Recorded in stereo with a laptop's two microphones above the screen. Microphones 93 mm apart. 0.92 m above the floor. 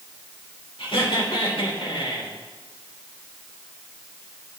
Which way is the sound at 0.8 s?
75° left (ahead or behind).